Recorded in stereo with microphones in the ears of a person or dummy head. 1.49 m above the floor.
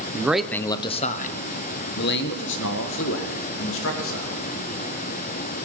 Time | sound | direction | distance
0.1 | a man speaking | 20° right (ahead or behind) | 0.6 m